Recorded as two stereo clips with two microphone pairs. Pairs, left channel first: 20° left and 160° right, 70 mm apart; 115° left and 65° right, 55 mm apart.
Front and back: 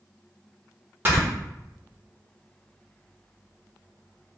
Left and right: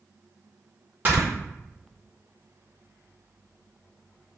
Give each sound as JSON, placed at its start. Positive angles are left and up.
{"t": 1.1, "sound": "snoring", "azimuth_deg": -110, "distance_m": 1.5}